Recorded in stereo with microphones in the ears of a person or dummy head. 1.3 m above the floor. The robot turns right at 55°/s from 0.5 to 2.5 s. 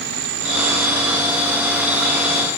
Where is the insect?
75° right; by 2.6 s 35° left.